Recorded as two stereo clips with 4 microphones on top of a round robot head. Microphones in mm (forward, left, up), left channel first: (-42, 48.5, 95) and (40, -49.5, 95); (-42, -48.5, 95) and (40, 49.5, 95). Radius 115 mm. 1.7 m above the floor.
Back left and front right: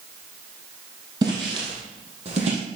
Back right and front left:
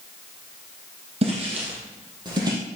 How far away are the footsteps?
About 3 m.